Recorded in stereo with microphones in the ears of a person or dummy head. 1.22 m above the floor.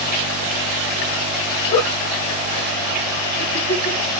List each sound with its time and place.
1.7 s a giggle: 35° left (ahead or behind), 1.3 m